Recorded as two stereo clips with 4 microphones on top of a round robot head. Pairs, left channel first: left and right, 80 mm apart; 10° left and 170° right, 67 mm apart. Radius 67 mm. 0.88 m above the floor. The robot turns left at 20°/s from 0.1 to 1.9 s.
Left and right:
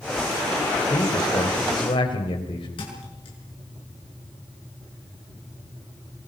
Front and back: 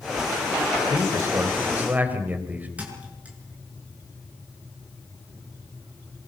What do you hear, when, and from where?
0.9 s a man speaking: 145° left, 4.5 m; by 2.7 s 125° left, 4.5 m
2.8 s a thud: 120° left, 6 m